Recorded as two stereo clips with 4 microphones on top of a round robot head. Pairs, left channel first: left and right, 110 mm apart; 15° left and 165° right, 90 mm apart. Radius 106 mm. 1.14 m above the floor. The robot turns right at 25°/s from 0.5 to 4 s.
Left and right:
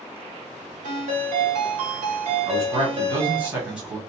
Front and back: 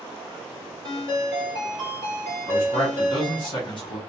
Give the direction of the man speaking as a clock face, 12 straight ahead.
1 o'clock.